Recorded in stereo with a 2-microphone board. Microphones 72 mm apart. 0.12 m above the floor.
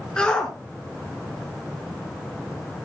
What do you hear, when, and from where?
0.2 s a shout: 10° left (ahead or behind), 1.3 m